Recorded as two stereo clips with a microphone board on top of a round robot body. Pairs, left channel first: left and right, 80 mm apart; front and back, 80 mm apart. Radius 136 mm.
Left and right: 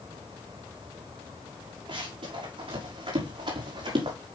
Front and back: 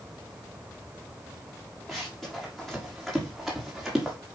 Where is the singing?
I don't hear singing.